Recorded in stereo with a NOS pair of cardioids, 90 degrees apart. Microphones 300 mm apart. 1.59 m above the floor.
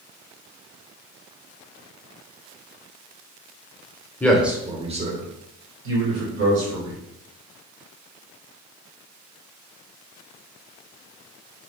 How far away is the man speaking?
About 0.8 m.